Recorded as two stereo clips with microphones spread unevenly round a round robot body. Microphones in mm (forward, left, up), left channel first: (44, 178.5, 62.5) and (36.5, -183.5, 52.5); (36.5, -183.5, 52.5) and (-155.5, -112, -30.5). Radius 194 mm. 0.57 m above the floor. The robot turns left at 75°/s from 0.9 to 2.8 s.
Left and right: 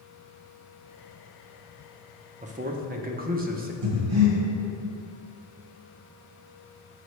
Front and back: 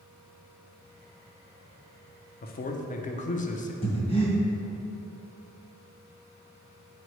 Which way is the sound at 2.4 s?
55° right.